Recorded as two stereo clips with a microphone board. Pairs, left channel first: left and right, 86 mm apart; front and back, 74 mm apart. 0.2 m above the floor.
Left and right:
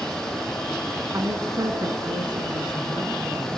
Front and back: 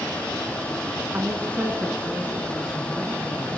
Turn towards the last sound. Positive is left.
turn(degrees=-95)